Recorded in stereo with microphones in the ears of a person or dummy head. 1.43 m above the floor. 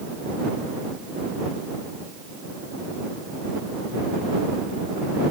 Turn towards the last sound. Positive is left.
No sound to turn to.